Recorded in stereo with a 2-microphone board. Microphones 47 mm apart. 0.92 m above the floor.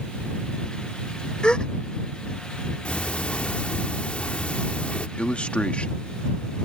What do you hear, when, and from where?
1.4 s a gasp: 20° left (ahead or behind)
2.9 s ticking: 25° left (ahead or behind)
5.2 s a man speaking: 25° left (ahead or behind)